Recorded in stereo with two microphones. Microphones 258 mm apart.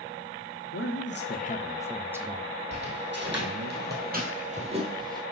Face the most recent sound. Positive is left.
turn(degrees=-15)  # may be behind; listen again after turning